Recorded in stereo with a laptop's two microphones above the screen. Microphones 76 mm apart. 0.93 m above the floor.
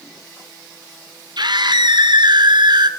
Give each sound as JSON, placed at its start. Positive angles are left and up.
{"t": 1.4, "sound": "a scream", "side_deg": -65, "distance_m": 3.0}